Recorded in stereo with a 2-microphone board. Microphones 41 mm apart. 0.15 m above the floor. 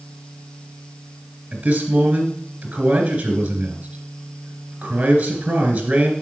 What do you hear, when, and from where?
1.5 s a man speaking: 35° right (ahead or behind), 2.5 m